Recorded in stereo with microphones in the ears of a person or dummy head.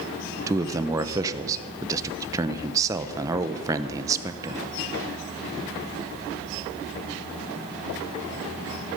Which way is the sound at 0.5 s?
20° right (ahead or behind).